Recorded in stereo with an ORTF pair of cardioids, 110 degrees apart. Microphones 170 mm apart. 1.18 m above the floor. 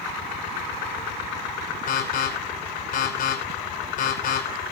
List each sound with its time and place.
1.9 s an alarm: 55° left, 5.5 m